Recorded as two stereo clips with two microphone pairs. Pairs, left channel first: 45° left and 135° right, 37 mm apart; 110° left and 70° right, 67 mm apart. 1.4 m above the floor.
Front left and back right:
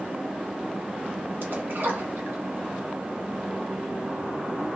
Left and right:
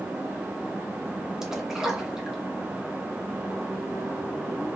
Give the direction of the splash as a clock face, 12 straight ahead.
5 o'clock.